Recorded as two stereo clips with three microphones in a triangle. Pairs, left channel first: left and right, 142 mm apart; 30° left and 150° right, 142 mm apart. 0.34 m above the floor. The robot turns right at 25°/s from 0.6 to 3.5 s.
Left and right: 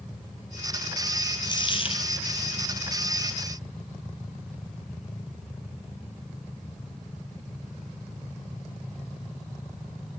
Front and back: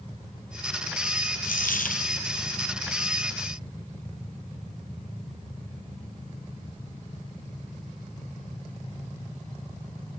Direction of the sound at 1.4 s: 30° left.